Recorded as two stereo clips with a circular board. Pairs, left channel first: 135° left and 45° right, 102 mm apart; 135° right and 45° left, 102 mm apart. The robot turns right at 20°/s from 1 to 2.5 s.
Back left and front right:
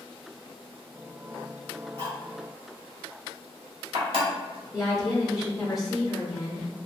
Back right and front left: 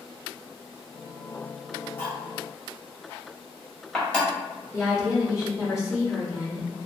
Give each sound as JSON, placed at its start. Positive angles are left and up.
{"t": 2.0, "sound": "cutlery clinking", "azimuth_deg": -65, "distance_m": 1.3}
{"t": 4.7, "sound": "a woman speaking", "azimuth_deg": -135, "distance_m": 1.1}